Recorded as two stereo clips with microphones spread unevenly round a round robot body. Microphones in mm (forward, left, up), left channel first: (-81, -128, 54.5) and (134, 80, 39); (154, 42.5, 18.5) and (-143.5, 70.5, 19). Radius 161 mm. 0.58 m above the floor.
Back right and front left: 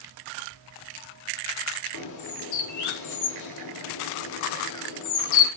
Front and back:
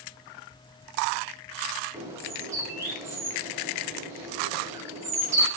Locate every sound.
1.9 s a bird: 105° right, 0.7 m